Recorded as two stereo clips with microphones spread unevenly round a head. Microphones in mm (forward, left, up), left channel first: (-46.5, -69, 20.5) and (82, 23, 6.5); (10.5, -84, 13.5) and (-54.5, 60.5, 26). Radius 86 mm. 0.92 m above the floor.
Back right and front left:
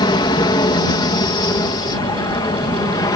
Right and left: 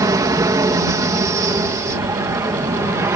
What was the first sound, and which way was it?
An aircraft, 170° left.